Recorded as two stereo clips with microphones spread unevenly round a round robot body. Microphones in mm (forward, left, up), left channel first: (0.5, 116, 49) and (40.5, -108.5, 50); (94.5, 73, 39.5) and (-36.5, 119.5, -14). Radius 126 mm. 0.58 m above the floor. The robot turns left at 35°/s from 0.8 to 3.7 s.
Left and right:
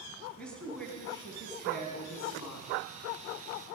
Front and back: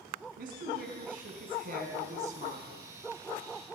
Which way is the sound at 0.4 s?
175° right.